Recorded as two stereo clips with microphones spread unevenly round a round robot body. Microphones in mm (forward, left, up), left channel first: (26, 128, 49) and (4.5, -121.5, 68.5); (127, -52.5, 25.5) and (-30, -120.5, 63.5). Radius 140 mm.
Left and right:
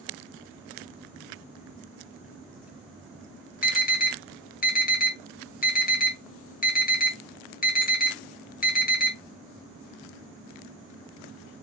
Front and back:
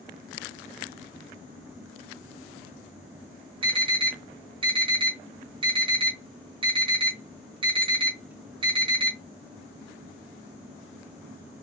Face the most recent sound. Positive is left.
turn(degrees=130)